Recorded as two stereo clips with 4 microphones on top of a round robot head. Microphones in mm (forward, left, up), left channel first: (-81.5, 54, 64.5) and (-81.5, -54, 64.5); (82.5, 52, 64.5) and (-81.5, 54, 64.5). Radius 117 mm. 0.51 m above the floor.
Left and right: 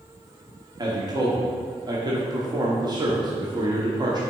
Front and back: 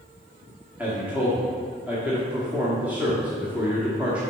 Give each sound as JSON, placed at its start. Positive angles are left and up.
{"t": 0.8, "sound": "a man speaking", "azimuth_deg": -105, "distance_m": 1.4}